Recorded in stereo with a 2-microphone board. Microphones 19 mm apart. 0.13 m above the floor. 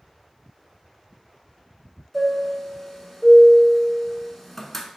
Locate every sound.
2.1 s a chime: 10° left (ahead or behind), 0.7 m